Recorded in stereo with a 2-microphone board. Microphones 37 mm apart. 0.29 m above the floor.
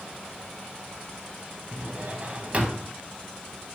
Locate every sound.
1.7 s a drawer: 40° right (ahead or behind), 0.6 m